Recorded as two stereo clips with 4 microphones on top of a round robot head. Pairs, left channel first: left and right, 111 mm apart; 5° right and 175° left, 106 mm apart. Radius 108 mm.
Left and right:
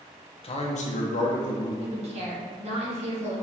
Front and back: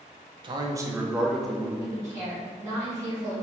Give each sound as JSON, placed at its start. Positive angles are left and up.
{"t": 0.4, "sound": "a man speaking", "azimuth_deg": 130, "distance_m": 0.8}
{"t": 1.8, "sound": "a woman speaking", "azimuth_deg": -120, "distance_m": 1.9}